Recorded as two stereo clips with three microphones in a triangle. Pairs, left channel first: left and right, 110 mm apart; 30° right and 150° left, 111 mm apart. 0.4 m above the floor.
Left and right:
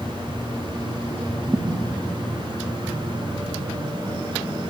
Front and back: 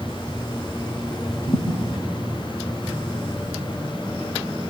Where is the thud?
30° right, 5 m.